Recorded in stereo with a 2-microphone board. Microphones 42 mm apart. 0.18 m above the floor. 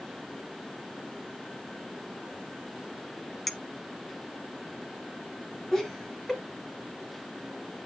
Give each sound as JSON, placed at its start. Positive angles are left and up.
{"t": 3.5, "sound": "a clink", "side_deg": 5, "distance_m": 0.8}
{"t": 5.7, "sound": "laughter", "side_deg": 10, "distance_m": 1.4}